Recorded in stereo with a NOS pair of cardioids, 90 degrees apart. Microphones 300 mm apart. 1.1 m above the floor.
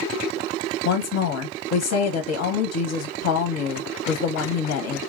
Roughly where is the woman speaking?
Ahead left.